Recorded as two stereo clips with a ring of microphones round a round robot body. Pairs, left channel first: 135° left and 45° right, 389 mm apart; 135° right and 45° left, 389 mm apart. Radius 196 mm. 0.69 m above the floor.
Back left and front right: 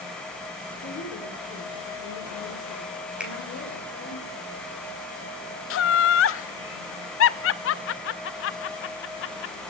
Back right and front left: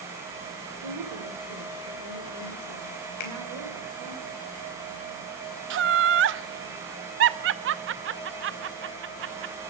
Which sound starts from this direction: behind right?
A finger snap, at 3.2 s.